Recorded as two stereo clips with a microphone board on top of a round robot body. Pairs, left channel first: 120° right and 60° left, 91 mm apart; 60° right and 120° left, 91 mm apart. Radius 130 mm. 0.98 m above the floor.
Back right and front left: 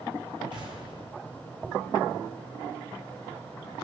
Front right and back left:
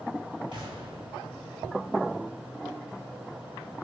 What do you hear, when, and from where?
0.5 s an explosion: 90° left, 5.5 m